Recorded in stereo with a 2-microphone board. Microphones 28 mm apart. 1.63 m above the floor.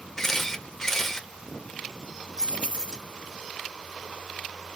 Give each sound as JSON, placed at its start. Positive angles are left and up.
{"t": 0.2, "sound": "a camera shutter", "side_deg": 20, "distance_m": 1.0}
{"t": 2.4, "sound": "keys jangling", "side_deg": -35, "distance_m": 1.5}